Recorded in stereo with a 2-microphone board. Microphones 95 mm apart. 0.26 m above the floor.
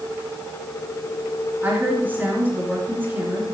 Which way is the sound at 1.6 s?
20° right (ahead or behind).